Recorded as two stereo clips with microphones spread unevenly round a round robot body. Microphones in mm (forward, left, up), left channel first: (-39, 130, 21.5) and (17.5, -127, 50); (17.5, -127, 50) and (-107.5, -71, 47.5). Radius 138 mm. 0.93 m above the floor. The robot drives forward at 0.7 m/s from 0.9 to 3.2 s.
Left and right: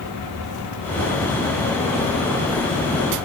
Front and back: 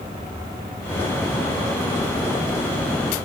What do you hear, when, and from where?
Only background noise.